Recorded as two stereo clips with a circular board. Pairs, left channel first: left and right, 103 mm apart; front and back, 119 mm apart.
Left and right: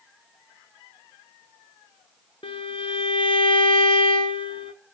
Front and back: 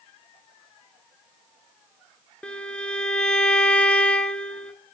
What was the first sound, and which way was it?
A violin, 80° left.